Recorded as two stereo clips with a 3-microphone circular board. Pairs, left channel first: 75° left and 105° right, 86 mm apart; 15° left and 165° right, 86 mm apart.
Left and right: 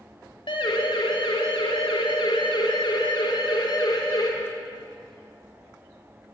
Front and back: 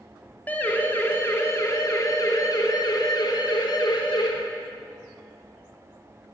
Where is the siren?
85° left, 3 m; by 4.3 s 40° left, 4 m.